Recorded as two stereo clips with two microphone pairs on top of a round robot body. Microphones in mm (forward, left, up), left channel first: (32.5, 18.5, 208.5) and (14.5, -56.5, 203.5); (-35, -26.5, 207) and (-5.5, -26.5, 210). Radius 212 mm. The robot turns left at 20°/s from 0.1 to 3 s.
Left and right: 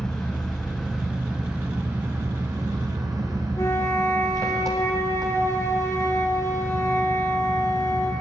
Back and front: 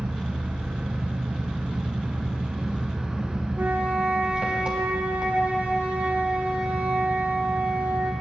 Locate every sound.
0.0 s an engine running: 5° right, 1.4 m; by 8.2 s 60° right, 1.4 m
3.6 s a flute: 25° left, 2 m